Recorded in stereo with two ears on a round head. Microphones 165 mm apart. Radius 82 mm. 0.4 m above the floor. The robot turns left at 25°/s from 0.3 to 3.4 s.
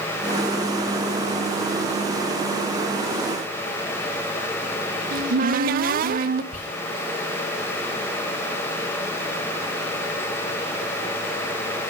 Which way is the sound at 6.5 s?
40° left (ahead or behind).